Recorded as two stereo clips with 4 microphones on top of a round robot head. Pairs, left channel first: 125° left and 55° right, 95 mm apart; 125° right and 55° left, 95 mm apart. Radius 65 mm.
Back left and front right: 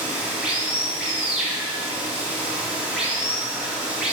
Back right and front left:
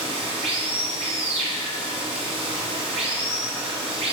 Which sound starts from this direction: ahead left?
Running water, at 0.0 s.